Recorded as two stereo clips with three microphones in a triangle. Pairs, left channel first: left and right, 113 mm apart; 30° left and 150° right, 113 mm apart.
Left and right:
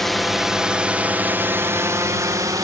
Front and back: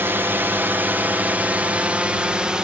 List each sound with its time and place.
0.0 s a drone: 175° left; by 2.6 s 75° right